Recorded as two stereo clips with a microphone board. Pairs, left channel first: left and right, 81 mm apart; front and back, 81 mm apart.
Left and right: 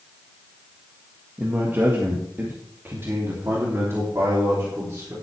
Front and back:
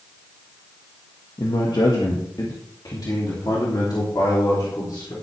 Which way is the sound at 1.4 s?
25° right.